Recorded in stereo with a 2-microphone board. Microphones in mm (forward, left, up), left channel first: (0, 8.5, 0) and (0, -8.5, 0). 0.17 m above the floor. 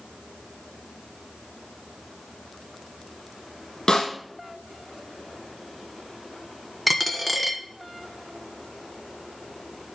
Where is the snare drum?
50° left (ahead or behind), 6 m.